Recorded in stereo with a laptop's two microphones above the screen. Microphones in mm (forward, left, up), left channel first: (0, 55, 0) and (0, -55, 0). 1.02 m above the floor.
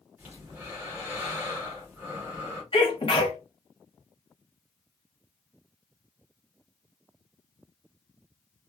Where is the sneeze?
55° left (ahead or behind), 1.0 m.